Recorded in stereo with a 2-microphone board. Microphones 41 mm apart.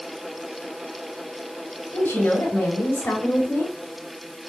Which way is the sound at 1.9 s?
65° left (ahead or behind).